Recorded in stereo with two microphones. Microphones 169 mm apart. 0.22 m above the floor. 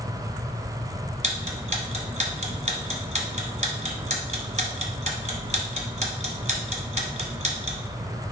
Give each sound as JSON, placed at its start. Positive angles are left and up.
{"t": 1.2, "sound": "ticking", "side_deg": -40, "distance_m": 1.2}